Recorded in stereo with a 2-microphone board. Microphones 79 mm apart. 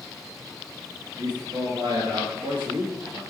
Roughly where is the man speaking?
Right.